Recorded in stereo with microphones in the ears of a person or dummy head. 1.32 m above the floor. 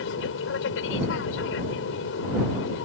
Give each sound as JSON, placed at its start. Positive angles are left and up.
{"t": 0.0, "sound": "an aircraft", "side_deg": 75}